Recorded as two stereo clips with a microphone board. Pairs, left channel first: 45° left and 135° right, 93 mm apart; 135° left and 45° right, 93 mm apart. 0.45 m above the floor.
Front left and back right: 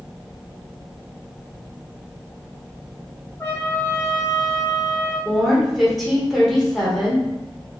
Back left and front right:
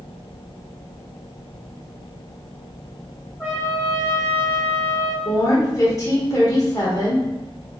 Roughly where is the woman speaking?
Behind left.